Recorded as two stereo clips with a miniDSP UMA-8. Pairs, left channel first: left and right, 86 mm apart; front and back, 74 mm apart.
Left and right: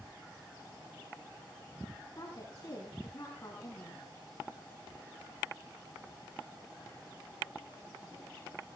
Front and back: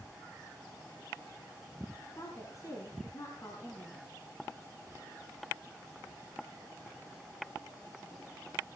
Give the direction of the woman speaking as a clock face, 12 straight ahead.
11 o'clock.